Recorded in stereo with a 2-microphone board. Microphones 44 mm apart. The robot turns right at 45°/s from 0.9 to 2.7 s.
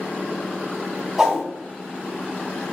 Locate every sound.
1.2 s a whoosh: 5° right (ahead or behind), 2.0 m; by 1.5 s centre (ahead or behind), 2.0 m